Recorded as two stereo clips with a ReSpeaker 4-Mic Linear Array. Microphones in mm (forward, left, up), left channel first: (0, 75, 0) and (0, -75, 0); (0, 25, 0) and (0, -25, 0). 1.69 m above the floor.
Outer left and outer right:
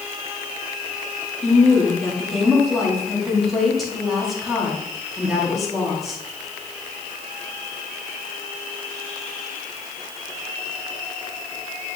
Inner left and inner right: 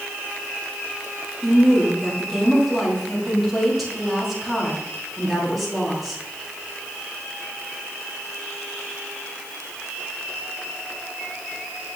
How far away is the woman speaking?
About 3 m.